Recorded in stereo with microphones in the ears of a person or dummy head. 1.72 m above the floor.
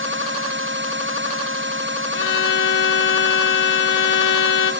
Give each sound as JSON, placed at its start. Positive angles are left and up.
{"t": 2.1, "sound": "a violin", "side_deg": 65, "distance_m": 0.8}